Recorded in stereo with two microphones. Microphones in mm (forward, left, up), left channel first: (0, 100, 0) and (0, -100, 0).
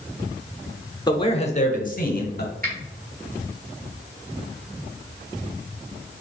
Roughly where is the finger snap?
Right.